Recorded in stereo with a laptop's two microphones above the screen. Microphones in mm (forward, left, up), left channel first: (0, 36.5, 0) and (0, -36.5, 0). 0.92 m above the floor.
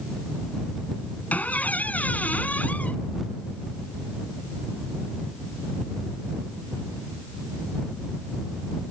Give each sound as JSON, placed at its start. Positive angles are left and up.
{"t": 1.3, "sound": "a squeak", "side_deg": 20}